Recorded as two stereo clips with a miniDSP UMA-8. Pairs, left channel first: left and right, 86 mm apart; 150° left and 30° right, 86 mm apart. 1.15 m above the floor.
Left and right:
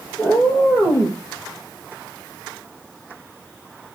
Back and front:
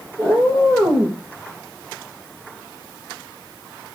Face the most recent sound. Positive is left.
turn(degrees=-5)